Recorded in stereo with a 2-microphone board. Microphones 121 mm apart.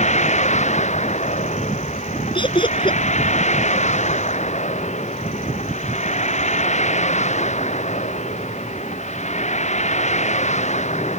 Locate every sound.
0.0 s a vehicle: 70° left (ahead or behind)
2.4 s laughter: 40° left (ahead or behind)